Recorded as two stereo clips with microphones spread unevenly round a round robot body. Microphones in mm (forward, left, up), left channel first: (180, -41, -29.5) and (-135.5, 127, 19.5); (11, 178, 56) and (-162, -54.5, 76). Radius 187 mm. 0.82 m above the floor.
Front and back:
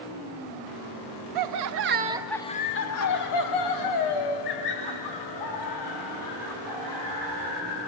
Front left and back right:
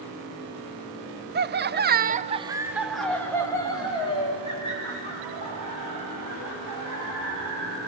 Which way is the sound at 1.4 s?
Straight behind.